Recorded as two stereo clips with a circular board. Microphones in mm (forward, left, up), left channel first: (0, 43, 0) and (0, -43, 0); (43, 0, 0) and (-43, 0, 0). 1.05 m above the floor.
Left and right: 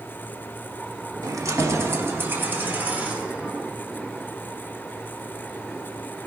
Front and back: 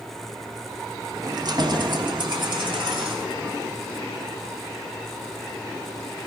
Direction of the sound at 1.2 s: 135° right.